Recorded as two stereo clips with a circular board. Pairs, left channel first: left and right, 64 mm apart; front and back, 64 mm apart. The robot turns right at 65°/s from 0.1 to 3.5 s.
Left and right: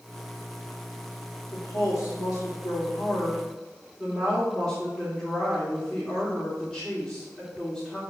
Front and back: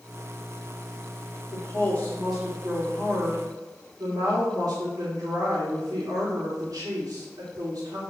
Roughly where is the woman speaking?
Ahead left.